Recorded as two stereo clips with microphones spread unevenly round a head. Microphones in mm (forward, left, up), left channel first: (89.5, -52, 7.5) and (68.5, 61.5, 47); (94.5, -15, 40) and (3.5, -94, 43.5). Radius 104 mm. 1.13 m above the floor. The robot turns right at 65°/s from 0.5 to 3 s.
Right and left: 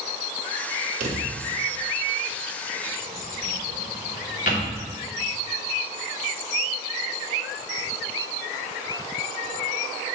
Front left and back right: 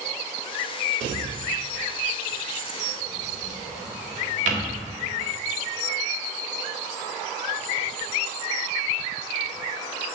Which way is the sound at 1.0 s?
105° left.